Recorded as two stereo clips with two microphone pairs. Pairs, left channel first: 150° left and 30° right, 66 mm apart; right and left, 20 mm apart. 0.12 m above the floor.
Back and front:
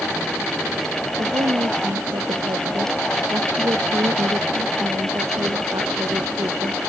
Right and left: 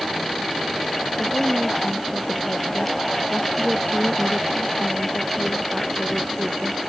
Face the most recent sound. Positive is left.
turn(degrees=-10)